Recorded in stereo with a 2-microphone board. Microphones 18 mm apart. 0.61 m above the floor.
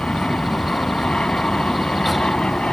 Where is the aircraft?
75° left (ahead or behind).